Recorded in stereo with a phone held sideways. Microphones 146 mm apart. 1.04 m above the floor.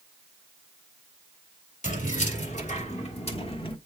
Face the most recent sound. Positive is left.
turn(degrees=35)  # may be behind; listen again after turning